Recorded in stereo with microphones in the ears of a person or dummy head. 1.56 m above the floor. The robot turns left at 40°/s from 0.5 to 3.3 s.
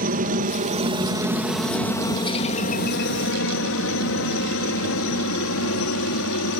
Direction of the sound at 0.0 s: 40° right (ahead or behind).